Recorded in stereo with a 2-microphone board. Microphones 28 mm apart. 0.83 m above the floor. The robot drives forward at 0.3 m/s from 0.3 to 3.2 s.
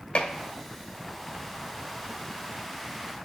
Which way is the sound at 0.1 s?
40° left (ahead or behind).